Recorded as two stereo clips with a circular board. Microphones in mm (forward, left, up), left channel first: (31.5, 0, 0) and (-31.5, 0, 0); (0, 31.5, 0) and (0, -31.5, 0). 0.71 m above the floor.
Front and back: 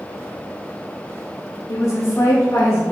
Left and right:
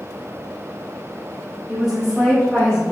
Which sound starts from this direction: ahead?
A woman speaking, at 1.7 s.